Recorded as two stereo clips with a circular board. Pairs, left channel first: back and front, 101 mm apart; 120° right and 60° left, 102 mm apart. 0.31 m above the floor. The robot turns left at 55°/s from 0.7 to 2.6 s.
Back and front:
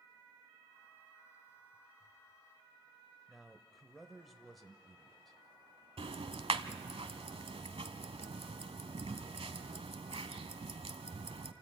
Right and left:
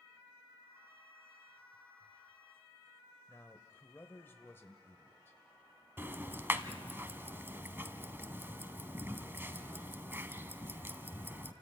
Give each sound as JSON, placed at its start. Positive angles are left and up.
{"t": 3.3, "sound": "a man speaking", "azimuth_deg": -90, "distance_m": 0.9}
{"t": 6.0, "sound": "ticking", "azimuth_deg": -5, "distance_m": 0.9}